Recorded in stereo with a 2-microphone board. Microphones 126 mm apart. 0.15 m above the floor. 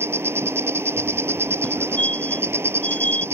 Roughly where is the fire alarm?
Centre.